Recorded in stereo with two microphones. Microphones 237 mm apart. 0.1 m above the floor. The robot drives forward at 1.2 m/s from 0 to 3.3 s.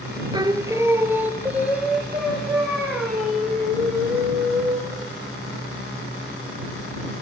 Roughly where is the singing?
Centre.